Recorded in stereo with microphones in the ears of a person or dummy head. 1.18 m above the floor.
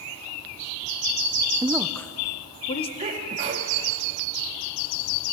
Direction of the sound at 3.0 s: 35° right (ahead or behind).